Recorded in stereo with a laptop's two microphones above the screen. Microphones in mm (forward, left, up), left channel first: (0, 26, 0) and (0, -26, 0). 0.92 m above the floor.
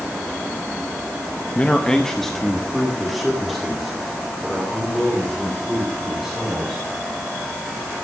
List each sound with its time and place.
1.6 s a man speaking: 25° left (ahead or behind), 0.6 m; by 6.8 s 5° right (ahead or behind), 4 m